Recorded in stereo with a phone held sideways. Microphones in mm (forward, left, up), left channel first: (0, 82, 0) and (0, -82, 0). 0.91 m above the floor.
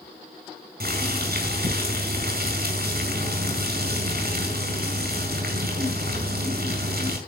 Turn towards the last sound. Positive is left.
turn(degrees=-75)  # may be behind; listen again after turning